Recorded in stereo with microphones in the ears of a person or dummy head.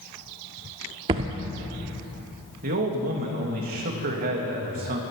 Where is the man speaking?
50° right (ahead or behind), 1.6 m.